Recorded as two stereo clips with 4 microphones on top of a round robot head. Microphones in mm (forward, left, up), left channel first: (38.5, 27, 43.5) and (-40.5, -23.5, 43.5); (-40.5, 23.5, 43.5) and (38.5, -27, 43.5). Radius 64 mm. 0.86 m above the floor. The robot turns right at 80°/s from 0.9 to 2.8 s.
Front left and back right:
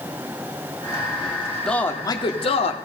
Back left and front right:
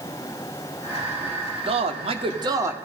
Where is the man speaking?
50° right, 2.0 m; by 2.8 s 35° left, 2.0 m.